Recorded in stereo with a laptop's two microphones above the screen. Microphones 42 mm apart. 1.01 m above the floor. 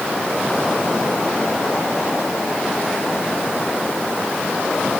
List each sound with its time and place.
Only background noise.